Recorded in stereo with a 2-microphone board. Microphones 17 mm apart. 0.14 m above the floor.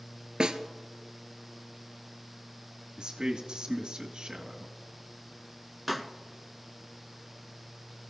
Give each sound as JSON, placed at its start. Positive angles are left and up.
{"t": 0.4, "sound": "a snare drum", "side_deg": -55, "distance_m": 1.0}
{"t": 3.0, "sound": "a man speaking", "side_deg": -55, "distance_m": 2.0}
{"t": 5.9, "sound": "a pop", "side_deg": -5, "distance_m": 0.9}